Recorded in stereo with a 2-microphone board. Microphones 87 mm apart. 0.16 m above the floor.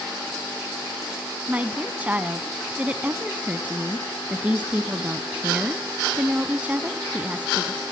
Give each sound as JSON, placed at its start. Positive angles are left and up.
{"t": 1.5, "sound": "a woman speaking", "side_deg": -15, "distance_m": 1.1}